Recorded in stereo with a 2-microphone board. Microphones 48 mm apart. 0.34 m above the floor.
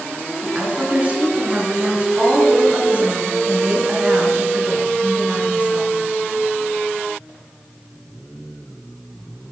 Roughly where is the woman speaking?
Right.